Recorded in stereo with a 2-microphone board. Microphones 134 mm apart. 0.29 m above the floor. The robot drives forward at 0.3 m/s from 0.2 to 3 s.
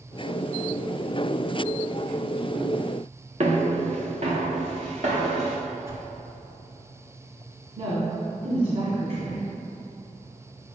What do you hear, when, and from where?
3.4 s footsteps: 55° right (ahead or behind), 1.5 m; by 5.6 s 65° right (ahead or behind), 3 m
5.9 s a whoosh: 20° right (ahead or behind), 1.7 m
7.8 s a woman speaking: 60° right (ahead or behind), 1.8 m